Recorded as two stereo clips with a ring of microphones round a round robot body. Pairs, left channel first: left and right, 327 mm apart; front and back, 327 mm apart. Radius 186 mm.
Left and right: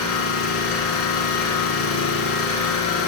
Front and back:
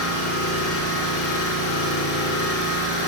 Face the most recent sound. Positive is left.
turn(degrees=45)